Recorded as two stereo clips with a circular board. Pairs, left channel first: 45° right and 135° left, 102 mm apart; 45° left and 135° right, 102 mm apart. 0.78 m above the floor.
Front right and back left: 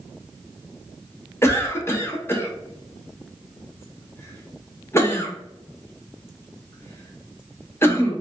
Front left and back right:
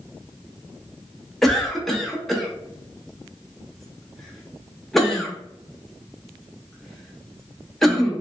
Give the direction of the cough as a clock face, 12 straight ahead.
1 o'clock.